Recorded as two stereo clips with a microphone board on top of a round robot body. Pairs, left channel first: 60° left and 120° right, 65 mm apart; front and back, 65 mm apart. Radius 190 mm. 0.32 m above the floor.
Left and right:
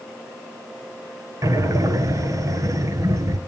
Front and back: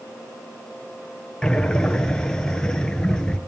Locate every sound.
1.4 s breathing: 80° right, 1.3 m